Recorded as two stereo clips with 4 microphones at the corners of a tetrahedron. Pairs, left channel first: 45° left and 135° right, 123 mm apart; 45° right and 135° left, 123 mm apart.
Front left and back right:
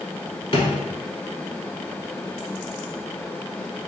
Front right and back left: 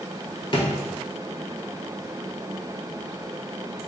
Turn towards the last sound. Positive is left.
turn(degrees=0)